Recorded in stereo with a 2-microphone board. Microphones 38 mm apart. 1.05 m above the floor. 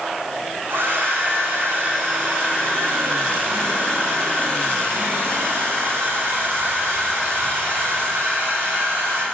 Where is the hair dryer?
85° right, 1.5 m.